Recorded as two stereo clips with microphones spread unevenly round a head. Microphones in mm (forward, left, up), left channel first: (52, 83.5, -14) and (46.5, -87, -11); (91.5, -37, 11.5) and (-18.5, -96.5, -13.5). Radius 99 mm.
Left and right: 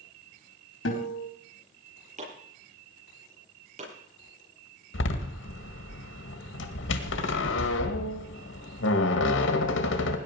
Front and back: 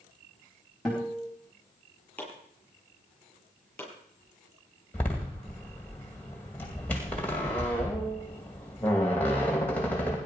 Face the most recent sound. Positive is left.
turn(degrees=110)